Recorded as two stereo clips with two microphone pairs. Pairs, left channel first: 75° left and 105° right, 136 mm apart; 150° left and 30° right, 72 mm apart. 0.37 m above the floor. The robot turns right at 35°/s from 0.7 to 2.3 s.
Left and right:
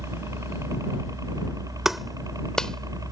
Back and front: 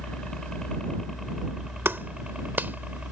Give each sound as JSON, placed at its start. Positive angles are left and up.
{"t": 0.0, "sound": "a helicopter", "azimuth_deg": -135}
{"t": 1.9, "sound": "a clap", "azimuth_deg": -20}